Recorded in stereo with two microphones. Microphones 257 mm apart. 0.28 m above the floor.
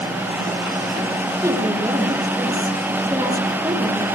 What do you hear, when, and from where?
1.4 s a woman speaking: 15° right (ahead or behind), 7.5 m